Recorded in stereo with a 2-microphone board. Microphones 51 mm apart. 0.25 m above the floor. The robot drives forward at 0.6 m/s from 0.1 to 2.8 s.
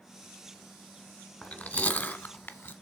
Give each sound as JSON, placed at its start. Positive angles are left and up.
{"t": 1.4, "sound": "chewing", "side_deg": 35, "distance_m": 1.4}